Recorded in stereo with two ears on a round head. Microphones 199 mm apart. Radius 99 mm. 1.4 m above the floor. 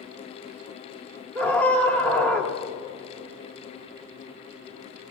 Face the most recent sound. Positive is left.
turn(degrees=10)  # may be behind; listen again after turning